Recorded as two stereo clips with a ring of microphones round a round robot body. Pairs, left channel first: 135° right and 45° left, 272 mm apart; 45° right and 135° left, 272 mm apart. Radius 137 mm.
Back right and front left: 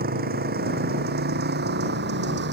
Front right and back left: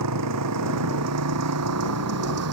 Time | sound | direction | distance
0.0 | a motorcycle | 105° left | ?